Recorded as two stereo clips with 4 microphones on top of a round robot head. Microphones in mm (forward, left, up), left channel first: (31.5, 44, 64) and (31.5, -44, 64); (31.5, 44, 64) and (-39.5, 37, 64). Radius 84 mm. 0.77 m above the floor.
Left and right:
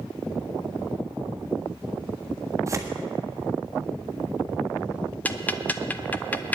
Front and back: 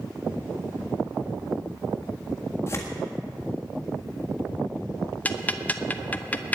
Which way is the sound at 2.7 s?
40° right.